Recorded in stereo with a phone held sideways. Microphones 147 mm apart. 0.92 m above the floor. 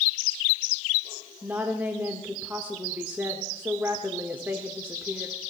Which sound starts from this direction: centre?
A woman speaking, at 1.4 s.